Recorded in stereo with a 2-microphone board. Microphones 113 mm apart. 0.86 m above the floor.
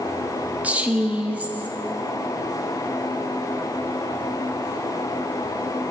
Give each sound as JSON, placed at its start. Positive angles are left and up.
{"t": 0.6, "sound": "a woman speaking", "side_deg": -15, "distance_m": 1.4}